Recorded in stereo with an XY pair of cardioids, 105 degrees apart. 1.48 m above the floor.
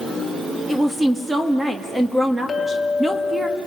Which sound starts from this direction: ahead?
A woman speaking, at 0.7 s.